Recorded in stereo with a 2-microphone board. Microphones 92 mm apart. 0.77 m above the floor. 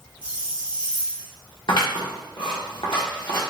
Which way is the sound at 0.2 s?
55° left (ahead or behind).